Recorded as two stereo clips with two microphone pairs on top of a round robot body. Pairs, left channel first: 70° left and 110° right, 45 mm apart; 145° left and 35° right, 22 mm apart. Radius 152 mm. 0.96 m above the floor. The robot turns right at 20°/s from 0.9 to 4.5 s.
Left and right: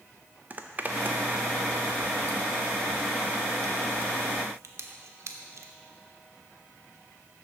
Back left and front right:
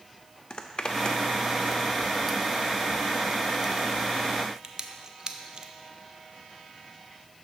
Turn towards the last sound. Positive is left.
turn(degrees=-95)